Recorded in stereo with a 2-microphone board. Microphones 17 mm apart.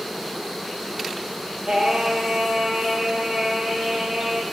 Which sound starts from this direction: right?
Singing, at 1.7 s.